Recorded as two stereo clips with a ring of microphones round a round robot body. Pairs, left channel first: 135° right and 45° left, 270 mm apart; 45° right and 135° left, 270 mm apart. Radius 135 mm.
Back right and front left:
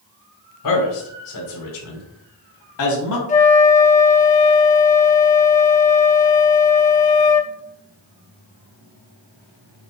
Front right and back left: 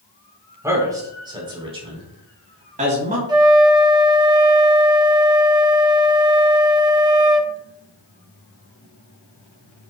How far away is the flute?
About 1.0 m.